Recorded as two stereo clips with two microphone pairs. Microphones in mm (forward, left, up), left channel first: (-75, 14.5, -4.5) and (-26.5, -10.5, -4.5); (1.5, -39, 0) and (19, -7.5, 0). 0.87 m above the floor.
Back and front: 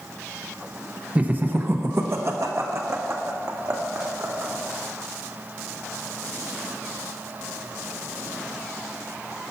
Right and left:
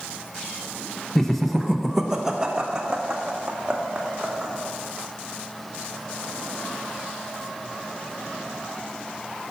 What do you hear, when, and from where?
1.1 s laughter: 60° right, 0.7 m; by 4.5 s straight ahead, 2 m